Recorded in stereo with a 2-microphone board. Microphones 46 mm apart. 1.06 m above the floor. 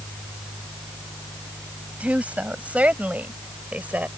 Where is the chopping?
I don't hear chopping.